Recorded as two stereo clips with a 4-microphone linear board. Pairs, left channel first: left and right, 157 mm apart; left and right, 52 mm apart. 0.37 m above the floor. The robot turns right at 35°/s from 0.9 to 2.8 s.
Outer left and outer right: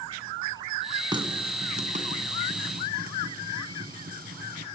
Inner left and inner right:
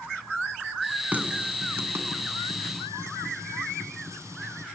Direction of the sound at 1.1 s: 30° right (ahead or behind).